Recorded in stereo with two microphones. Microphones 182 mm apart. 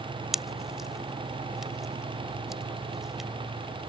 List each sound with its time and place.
0.3 s a pop: centre (ahead or behind)